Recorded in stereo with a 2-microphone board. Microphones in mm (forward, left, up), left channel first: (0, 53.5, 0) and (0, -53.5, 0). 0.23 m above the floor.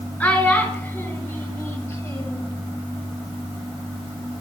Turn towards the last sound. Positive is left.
turn(degrees=35)  # may be behind; listen again after turning